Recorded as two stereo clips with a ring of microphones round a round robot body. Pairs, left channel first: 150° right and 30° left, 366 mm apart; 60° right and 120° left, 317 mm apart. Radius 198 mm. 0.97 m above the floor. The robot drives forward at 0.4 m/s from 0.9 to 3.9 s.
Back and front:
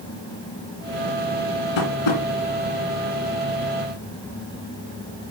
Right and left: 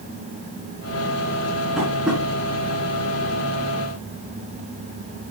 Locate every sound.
1.8 s tapping: 150° right, 3 m; by 2.2 s 155° right, 3 m